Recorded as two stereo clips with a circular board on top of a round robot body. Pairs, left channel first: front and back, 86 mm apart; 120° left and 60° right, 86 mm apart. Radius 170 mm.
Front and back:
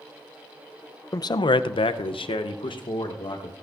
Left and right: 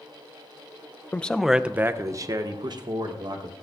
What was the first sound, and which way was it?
A man speaking, 50° left.